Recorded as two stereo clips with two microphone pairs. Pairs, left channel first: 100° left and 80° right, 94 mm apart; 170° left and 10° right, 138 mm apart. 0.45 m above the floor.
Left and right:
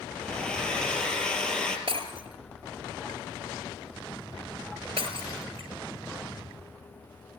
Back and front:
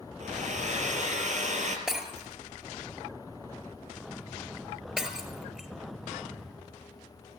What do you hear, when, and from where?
0.2 s a hair dryer: 20° left, 3.5 m
1.9 s breaking glass: 95° right, 4 m